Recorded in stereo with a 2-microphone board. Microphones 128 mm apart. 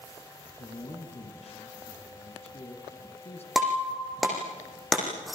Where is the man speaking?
50° left (ahead or behind), 4 m.